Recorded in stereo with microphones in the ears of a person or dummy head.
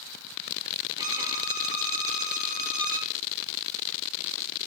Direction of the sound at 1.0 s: 25° right (ahead or behind).